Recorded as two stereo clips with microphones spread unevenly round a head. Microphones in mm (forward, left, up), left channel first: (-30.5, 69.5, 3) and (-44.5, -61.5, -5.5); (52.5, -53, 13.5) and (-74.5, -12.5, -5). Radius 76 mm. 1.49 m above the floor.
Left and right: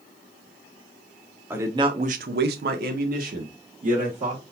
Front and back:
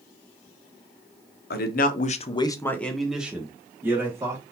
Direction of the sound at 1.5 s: 15° right.